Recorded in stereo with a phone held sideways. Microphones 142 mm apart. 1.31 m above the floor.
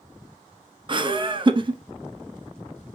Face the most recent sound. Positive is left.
turn(degrees=-35)  # may be behind; listen again after turning